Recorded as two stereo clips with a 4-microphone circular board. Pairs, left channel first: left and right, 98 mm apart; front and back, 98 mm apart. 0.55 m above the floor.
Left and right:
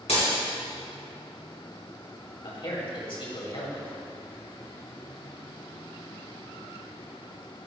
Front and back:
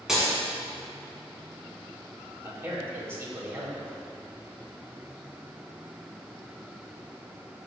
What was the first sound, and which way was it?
Breaking glass, 95° left.